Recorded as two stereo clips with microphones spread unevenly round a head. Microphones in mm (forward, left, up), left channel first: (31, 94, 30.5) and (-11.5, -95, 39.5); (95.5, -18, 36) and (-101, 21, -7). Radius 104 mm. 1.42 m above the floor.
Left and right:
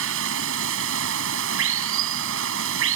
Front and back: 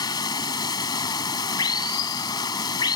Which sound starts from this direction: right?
Running water, at 0.0 s.